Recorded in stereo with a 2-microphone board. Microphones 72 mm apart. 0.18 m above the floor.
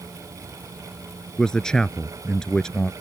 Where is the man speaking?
10° left (ahead or behind).